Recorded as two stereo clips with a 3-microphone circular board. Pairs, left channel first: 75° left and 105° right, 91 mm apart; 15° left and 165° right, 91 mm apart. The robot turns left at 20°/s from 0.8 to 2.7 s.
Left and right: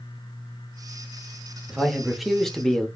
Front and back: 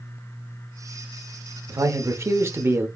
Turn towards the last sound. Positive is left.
turn(degrees=155)